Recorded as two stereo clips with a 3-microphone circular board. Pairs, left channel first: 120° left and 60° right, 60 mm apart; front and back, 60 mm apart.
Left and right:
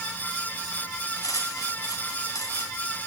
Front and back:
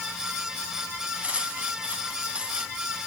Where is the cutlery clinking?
115° left, 2.5 m.